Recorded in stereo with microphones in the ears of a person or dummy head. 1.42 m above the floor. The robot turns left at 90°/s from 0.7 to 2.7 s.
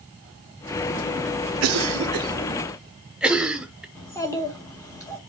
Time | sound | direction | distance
1.6 | a cough | 80° right | 0.8 m
4.0 | a child speaking | 15° left (ahead or behind) | 1.4 m